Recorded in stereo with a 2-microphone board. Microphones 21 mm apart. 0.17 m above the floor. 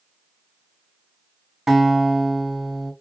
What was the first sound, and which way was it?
A guitar, 20° right (ahead or behind).